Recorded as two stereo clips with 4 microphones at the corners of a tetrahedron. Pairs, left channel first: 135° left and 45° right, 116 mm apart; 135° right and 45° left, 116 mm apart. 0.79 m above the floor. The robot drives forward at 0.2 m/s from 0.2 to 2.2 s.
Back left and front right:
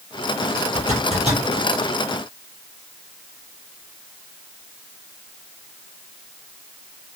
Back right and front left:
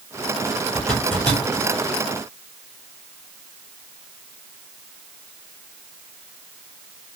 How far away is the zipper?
About 3.5 m.